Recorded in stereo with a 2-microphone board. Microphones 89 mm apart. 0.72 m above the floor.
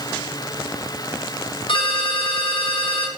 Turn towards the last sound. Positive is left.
turn(degrees=80)